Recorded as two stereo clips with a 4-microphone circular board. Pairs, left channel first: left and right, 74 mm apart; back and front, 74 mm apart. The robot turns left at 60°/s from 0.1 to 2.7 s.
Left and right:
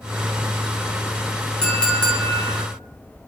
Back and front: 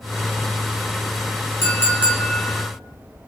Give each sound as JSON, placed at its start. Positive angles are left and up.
{"t": 1.6, "sound": "a clink", "azimuth_deg": 165, "distance_m": 0.7}